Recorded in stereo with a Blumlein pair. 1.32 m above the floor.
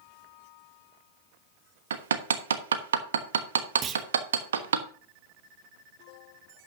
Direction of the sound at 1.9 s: 65° right.